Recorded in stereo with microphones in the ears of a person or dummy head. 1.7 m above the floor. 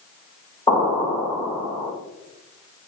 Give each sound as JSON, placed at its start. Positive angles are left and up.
{"t": 0.7, "sound": "an explosion", "side_deg": 25, "distance_m": 2.5}